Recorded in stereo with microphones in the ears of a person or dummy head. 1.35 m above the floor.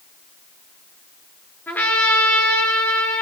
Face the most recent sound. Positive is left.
turn(degrees=15)  # may be behind; listen again after turning